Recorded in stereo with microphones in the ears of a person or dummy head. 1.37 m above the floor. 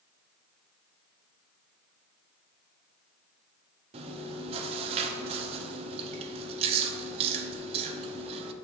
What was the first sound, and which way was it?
Chewing, 30° right (ahead or behind).